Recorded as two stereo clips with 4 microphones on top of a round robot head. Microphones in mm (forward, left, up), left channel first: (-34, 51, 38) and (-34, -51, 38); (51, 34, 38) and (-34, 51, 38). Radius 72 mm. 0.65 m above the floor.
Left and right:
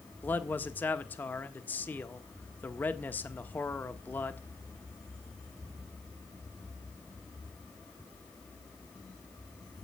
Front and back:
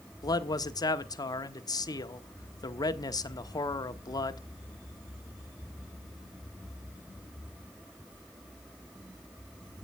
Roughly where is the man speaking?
Ahead.